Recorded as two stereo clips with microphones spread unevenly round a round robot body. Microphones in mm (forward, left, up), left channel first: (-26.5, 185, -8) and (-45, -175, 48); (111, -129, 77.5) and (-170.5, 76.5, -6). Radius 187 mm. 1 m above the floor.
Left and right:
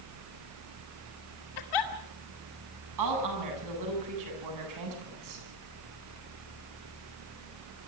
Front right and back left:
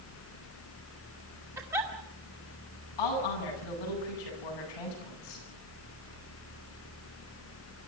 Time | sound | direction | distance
1.6 | a giggle | 60° left | 2.5 m
3.0 | a woman speaking | 50° right | 9.5 m